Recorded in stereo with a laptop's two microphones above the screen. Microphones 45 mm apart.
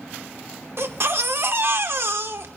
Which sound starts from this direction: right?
A baby crying, at 0.8 s.